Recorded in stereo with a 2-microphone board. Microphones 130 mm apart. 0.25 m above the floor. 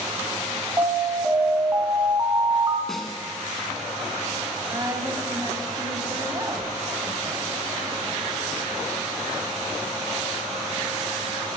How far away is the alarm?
About 1.6 m.